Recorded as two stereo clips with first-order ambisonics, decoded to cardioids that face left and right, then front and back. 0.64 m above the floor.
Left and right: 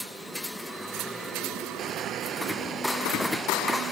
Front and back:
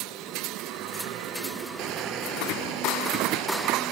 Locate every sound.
1.8 s crushing: 150° right